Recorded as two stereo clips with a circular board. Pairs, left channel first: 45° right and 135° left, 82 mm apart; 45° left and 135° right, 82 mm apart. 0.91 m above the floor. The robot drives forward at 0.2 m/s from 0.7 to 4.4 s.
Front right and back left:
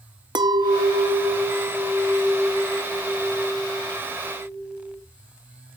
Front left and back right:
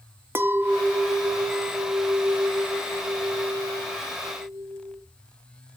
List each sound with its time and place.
0.3 s a clink: 160° left, 0.5 m; by 5.0 s 170° left, 1.3 m